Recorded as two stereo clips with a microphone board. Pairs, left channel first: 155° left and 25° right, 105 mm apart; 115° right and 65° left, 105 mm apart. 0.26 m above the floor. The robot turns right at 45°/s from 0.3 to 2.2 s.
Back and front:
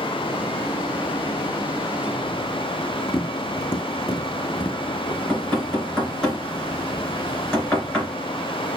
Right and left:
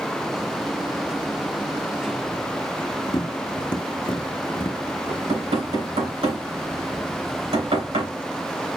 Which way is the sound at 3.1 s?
145° right.